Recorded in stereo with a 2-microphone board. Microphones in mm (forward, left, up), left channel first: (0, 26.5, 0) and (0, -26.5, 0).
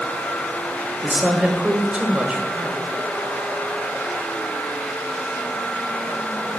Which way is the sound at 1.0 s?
20° right (ahead or behind).